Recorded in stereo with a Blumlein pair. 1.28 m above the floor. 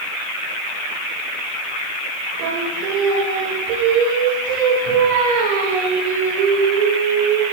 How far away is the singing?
About 2.5 m.